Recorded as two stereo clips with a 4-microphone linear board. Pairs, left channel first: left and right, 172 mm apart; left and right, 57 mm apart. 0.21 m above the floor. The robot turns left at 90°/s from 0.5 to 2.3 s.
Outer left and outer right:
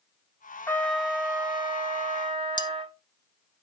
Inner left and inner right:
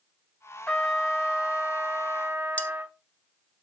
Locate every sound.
0.7 s a trumpet: 30° left, 0.7 m; by 3.0 s 120° right, 0.7 m
2.6 s cutlery clinking: 25° left (ahead or behind), 0.6 m